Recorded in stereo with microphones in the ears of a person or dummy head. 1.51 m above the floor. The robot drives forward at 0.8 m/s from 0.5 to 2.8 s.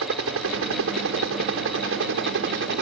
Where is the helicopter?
70° right (ahead or behind); by 2.8 s 60° right (ahead or behind).